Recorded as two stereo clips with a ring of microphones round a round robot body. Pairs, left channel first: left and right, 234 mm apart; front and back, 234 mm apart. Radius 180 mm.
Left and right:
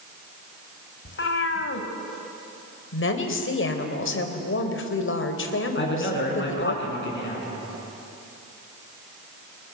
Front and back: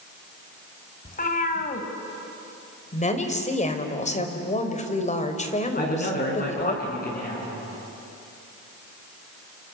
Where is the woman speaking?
60° left, 3.5 m.